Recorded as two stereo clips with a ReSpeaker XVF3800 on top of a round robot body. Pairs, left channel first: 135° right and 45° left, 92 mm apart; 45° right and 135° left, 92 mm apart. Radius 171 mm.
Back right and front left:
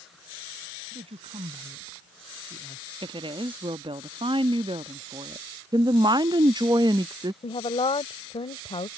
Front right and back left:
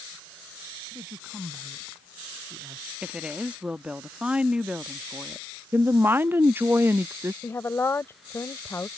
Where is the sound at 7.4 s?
110° right.